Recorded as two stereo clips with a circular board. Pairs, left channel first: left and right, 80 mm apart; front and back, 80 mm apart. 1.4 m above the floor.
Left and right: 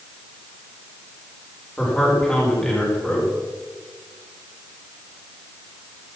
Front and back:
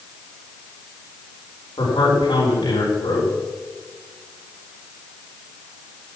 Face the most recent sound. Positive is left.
turn(degrees=15)